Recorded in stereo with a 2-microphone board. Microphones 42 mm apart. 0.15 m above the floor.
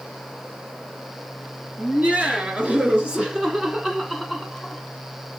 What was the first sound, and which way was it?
Laughter, 35° right (ahead or behind).